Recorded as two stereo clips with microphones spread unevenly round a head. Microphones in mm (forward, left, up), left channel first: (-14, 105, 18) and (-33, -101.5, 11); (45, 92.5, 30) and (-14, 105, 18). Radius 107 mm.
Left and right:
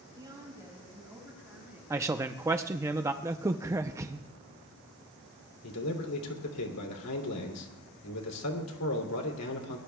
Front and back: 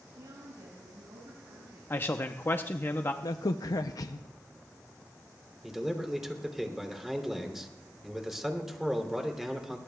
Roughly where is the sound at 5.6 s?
Left.